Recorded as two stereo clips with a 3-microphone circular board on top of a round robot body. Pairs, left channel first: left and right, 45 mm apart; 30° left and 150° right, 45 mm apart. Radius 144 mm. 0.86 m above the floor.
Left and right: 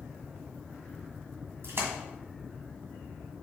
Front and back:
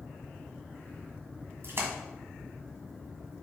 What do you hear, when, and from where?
1.6 s a splash: 120° right, 1.9 m